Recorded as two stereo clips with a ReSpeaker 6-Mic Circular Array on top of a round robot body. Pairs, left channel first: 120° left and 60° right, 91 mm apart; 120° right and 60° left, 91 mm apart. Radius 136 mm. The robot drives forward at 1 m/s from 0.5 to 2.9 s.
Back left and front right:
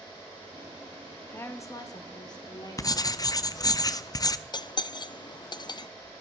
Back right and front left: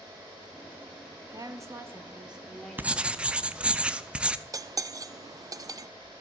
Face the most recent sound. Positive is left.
turn(degrees=100)